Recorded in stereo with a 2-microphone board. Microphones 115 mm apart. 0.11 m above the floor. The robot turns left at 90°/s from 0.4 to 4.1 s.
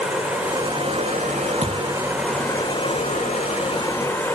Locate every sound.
0.0 s running water: 10° right, 6 m; by 4.4 s 20° left, 6 m
1.6 s a thud: 65° right (ahead or behind), 3.5 m; by 1.9 s 35° right (ahead or behind), 3.5 m